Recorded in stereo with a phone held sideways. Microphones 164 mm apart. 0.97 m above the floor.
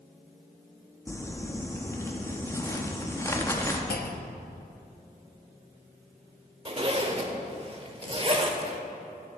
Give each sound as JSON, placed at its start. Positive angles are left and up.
{"t": 1.1, "sound": "crumpling", "side_deg": 15, "distance_m": 0.8}
{"t": 3.9, "sound": "a clunk", "side_deg": 70, "distance_m": 0.6}
{"t": 6.7, "sound": "a zipper", "side_deg": -35, "distance_m": 0.8}